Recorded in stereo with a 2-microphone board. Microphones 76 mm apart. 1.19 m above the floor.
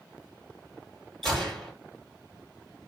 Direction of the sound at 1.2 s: Centre (ahead or behind).